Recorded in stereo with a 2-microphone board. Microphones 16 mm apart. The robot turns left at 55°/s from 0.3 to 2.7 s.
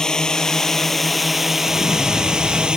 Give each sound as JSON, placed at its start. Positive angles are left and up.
{"t": 0.0, "sound": "a drone", "azimuth_deg": 45}
{"t": 1.7, "sound": "an explosion", "azimuth_deg": -80}